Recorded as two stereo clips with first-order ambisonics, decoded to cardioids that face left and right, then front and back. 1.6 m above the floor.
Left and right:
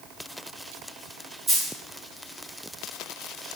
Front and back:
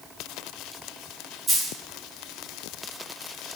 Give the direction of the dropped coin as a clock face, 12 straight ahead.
4 o'clock.